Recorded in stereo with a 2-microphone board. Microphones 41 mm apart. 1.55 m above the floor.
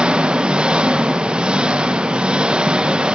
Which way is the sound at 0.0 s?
25° right (ahead or behind).